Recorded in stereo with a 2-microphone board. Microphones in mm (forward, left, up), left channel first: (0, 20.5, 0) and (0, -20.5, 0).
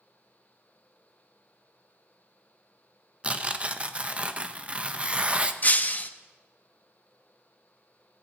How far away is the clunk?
I don't hear a clunk.